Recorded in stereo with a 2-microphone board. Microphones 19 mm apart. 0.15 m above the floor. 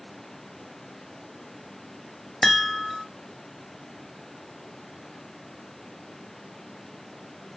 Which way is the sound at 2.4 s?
15° left (ahead or behind).